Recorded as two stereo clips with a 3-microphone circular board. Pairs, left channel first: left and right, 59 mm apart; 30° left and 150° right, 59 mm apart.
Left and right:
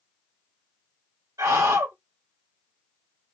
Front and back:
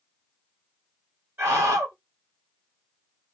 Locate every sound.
1.4 s a scream: 110° right, 1.8 m